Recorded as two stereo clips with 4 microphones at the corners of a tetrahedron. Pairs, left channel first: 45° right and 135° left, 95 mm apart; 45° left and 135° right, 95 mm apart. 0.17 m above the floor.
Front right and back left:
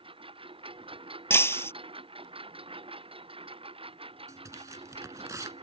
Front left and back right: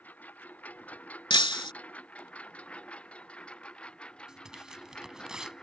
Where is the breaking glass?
15° left.